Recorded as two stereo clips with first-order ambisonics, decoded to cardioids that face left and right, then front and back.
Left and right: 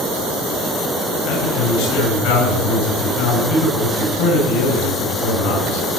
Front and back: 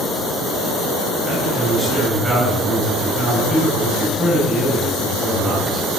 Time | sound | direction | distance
1.2 | a man speaking | 90° left | 8 m